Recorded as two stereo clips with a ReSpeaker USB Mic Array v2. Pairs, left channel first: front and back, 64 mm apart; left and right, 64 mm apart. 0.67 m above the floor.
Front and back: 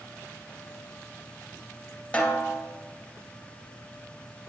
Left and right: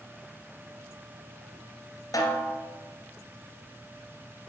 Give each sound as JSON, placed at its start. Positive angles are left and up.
{"t": 2.1, "sound": "a snare drum", "azimuth_deg": 70, "distance_m": 2.0}